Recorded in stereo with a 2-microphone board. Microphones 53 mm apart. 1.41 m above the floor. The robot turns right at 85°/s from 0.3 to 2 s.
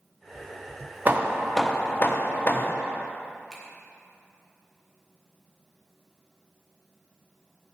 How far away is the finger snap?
About 1.6 m.